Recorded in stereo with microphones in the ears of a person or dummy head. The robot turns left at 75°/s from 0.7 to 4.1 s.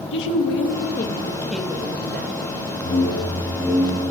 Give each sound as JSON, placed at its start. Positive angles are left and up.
{"t": 0.1, "sound": "a woman speaking", "azimuth_deg": 65, "distance_m": 0.9}
{"t": 2.8, "sound": "a whoosh", "azimuth_deg": 55, "distance_m": 1.5}